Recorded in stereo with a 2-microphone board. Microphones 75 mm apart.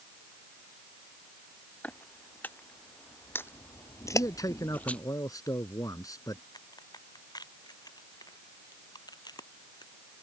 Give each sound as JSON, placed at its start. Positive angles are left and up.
{"t": 1.8, "sound": "footsteps", "side_deg": 20}
{"t": 4.1, "sound": "a man speaking", "side_deg": 55}
{"t": 6.5, "sound": "a crack", "side_deg": 65}